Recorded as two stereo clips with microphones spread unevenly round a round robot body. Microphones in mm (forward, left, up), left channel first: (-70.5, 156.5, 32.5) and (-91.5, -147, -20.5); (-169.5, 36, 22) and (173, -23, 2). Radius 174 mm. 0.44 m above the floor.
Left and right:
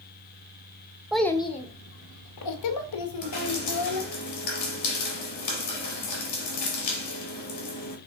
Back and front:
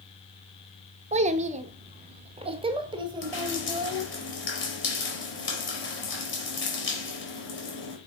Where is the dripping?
115° left, 4 m.